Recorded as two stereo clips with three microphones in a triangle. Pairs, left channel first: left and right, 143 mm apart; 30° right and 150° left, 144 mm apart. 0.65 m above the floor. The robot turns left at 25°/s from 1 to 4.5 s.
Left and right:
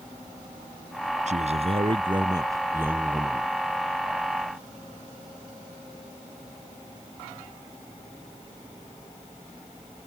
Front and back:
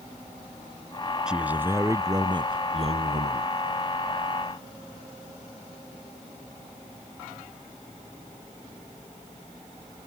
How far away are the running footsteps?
No running footsteps in this recording.